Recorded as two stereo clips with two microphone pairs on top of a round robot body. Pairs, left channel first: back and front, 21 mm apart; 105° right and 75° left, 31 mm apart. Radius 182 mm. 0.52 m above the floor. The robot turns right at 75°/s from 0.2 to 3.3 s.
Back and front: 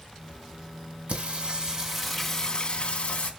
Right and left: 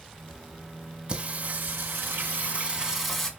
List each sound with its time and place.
1.1 s singing: 15° left, 3 m; by 3.3 s straight behind, 3 m